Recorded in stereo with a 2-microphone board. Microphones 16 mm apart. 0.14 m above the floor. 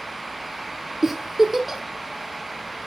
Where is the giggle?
20° right (ahead or behind), 1.3 m.